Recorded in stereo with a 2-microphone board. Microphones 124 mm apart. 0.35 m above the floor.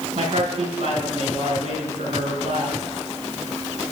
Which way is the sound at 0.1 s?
60° right (ahead or behind).